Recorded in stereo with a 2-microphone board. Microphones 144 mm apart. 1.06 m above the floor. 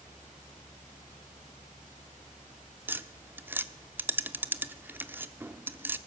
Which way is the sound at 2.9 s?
15° right (ahead or behind).